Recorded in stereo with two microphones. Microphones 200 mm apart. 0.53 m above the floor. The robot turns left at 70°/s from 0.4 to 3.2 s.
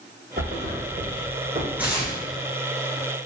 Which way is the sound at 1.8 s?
10° right (ahead or behind).